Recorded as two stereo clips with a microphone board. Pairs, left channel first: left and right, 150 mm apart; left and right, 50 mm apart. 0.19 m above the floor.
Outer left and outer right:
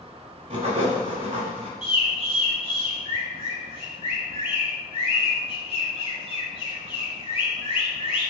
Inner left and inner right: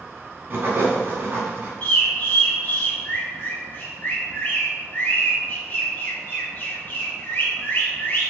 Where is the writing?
45° right (ahead or behind), 0.9 m.